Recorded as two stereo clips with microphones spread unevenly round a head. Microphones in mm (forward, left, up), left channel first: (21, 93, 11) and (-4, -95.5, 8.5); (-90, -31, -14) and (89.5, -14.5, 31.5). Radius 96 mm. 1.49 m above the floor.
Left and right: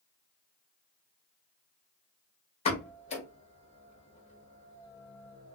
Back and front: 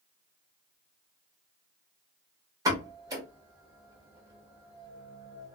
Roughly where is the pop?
Ahead left.